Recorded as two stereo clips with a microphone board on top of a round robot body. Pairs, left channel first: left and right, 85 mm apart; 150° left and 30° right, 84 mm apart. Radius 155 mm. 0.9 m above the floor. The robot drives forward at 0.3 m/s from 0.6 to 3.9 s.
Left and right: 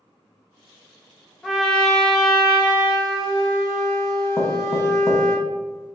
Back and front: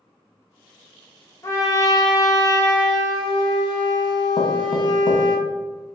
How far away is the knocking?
About 0.8 m.